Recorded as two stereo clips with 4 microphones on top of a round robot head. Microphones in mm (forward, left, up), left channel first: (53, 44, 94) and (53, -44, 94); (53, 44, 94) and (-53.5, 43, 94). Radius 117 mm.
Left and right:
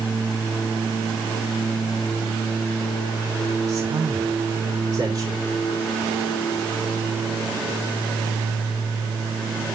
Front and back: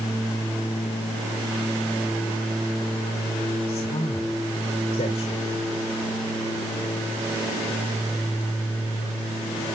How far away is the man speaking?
About 2 m.